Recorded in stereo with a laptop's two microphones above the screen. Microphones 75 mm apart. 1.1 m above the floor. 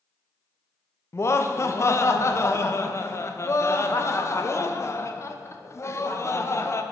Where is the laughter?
40° left (ahead or behind), 0.5 m.